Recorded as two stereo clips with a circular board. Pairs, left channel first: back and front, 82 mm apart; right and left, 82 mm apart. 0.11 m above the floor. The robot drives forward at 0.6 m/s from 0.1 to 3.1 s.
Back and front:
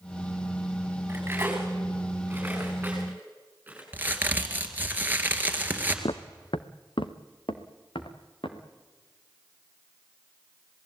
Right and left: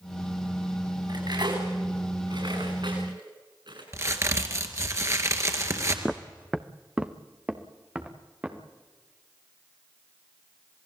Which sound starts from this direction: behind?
Footsteps, at 6.0 s.